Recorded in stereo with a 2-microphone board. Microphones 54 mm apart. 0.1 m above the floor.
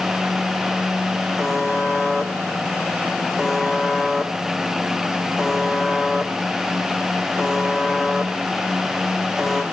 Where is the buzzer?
10° right (ahead or behind), 1.1 m.